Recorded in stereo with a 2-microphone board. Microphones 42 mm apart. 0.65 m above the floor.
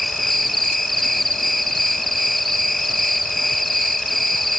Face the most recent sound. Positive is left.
turn(degrees=0)  # may be behind; listen again after turning